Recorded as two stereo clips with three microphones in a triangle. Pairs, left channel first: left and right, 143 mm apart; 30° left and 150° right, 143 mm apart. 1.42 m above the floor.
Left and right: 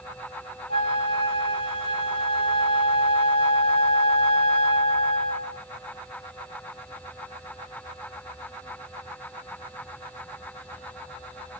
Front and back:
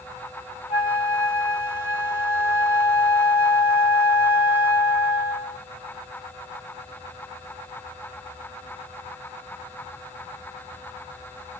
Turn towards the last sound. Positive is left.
turn(degrees=135)